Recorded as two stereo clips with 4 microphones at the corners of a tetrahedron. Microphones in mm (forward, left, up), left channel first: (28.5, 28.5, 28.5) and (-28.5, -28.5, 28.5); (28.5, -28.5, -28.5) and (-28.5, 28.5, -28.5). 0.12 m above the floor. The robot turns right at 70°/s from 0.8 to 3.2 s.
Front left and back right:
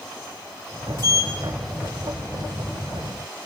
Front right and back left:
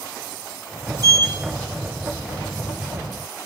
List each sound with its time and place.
1.0 s a sliding door: straight ahead, 2.5 m; by 1.3 s 25° left, 2.5 m